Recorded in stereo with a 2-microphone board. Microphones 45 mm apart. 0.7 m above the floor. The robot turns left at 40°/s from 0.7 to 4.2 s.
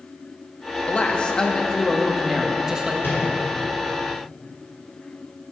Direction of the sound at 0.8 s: 55° left.